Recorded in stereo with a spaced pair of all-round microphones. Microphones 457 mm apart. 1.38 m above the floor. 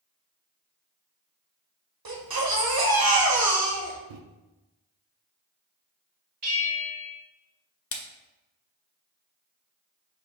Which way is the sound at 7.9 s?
30° left (ahead or behind).